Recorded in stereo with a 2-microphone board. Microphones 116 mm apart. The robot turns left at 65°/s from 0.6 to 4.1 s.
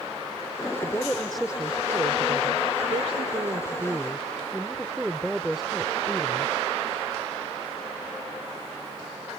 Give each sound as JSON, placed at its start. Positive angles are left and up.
{"t": 0.8, "sound": "a woman speaking", "azimuth_deg": 35}